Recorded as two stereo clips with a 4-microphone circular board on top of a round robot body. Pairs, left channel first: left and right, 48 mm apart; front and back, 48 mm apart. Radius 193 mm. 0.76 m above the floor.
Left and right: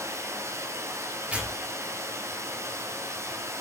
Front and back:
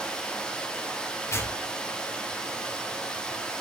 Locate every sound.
0.0 s running water: 70° right, 1.9 m
1.3 s tearing paper: 25° right, 2.5 m